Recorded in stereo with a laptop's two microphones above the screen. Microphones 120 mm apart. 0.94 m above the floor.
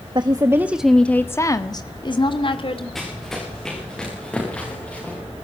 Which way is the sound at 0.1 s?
40° right (ahead or behind).